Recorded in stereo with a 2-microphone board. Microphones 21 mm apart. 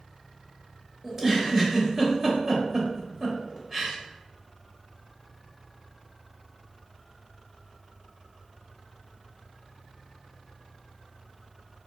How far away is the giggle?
About 1.0 m.